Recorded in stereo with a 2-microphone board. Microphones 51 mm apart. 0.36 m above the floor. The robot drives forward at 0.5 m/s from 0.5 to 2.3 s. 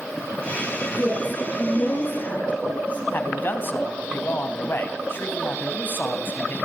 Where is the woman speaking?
35° left (ahead or behind), 6.5 m.